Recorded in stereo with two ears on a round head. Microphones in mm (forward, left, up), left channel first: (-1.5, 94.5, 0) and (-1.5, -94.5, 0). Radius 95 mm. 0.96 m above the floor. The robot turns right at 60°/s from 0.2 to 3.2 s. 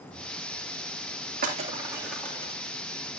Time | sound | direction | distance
1.4 | breaking glass | 45° right (ahead or behind) | 3 m